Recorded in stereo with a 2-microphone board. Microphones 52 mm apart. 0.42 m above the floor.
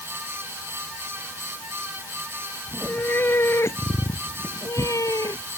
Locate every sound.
2.7 s a cat meowing: 35° left (ahead or behind); by 5.4 s 85° left